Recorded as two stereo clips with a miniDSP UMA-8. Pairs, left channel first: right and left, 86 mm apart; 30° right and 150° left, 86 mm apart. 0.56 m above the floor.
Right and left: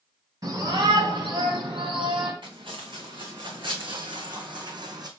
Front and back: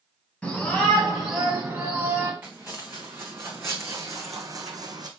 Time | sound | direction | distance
0.4 | a shout | 50° left | 3.5 m
2.4 | footsteps | 85° left | 2.5 m